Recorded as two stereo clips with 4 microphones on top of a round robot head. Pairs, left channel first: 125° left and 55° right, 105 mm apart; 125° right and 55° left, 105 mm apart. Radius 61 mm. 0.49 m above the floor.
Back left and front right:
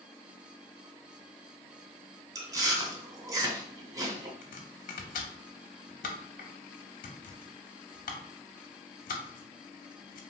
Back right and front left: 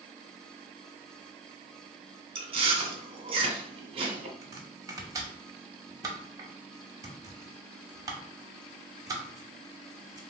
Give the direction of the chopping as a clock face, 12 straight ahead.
8 o'clock.